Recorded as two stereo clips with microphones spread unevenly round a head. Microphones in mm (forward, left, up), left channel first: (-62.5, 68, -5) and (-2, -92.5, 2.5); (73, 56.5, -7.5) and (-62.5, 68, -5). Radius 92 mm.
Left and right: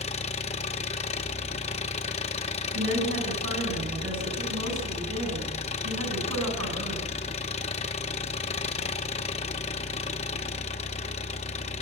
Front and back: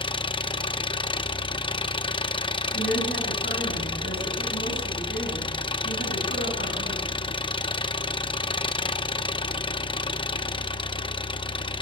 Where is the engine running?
50° left, 0.9 m.